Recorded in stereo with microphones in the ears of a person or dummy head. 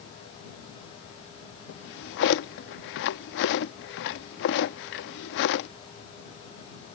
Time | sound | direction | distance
1.7 | a drawer | 55° left (ahead or behind) | ?